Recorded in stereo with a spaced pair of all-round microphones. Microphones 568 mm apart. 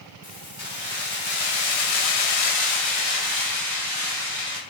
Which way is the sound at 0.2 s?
40° left (ahead or behind).